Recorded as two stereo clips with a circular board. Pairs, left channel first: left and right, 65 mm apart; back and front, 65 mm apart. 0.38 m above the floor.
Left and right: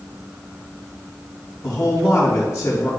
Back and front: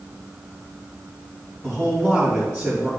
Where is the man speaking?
60° left, 2.5 m.